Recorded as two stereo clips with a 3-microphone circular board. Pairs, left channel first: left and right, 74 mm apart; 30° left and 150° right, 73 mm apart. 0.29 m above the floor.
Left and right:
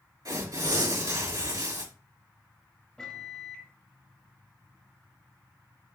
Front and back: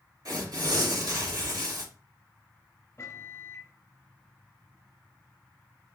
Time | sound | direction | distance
0.2 | tearing paper | 115° right | 4 m
3.0 | a microwave | 20° left | 0.8 m